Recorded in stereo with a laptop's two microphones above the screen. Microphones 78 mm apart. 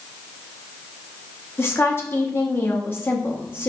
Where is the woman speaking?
35° left (ahead or behind), 1.4 m.